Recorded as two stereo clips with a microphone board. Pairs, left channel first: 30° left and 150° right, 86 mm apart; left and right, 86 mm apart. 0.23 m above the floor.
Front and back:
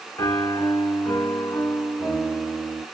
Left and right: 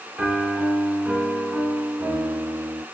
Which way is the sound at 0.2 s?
20° right.